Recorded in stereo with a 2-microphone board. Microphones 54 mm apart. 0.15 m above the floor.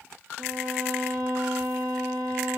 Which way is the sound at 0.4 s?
60° right (ahead or behind).